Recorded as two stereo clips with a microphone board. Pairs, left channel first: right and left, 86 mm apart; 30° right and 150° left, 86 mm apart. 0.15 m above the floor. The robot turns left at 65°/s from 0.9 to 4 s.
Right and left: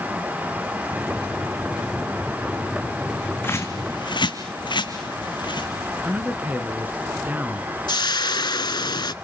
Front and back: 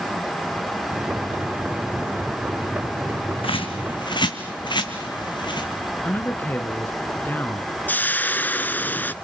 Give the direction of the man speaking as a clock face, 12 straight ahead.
11 o'clock.